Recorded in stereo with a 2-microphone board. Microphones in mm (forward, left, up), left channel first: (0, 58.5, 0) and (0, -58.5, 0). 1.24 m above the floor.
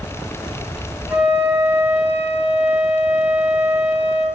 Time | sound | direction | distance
1.1 | a flute | 15° right (ahead or behind) | 3.5 m